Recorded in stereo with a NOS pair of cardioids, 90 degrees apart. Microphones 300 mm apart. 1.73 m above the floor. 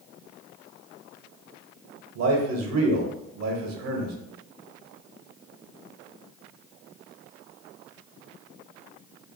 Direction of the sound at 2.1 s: 60° right.